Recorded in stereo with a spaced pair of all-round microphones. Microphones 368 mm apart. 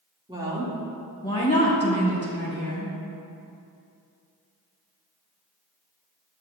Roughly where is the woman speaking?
Centre.